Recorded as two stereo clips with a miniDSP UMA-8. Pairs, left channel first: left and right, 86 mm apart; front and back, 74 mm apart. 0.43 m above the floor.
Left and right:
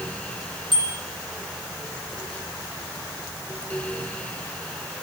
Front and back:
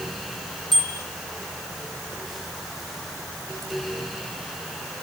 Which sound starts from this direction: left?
A bicycle bell, at 0.7 s.